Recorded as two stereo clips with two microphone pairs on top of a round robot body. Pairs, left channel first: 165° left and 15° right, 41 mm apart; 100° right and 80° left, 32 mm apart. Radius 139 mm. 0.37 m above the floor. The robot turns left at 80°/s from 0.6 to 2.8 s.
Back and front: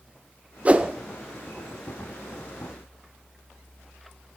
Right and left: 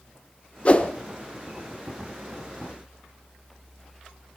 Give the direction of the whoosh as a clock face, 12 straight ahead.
2 o'clock.